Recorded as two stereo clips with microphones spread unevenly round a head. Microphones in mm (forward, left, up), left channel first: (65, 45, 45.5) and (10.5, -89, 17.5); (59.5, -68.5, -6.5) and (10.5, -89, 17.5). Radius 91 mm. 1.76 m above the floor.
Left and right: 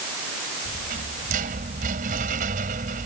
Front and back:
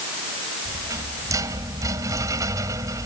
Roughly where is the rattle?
Behind.